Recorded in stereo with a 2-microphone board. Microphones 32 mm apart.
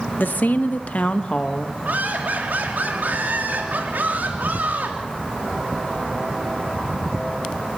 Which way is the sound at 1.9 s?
75° right (ahead or behind).